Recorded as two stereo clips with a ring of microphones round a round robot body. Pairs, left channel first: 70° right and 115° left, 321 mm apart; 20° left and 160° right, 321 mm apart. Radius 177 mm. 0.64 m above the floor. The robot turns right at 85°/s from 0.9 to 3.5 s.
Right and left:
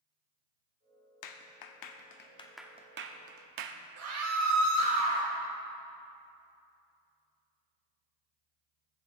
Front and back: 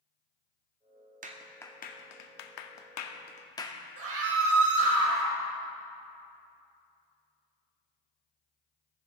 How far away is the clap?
About 0.9 m.